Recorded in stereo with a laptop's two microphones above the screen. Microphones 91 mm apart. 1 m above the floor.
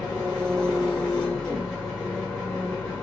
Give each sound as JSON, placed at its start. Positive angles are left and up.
{"t": 0.0, "sound": "an engine running", "side_deg": 5, "distance_m": 4.0}